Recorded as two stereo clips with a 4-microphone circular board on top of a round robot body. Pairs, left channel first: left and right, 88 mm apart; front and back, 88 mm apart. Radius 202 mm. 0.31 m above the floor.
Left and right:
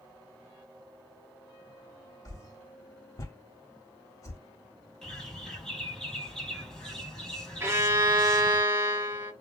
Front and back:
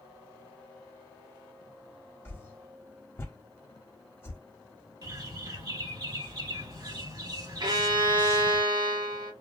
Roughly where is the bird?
Behind.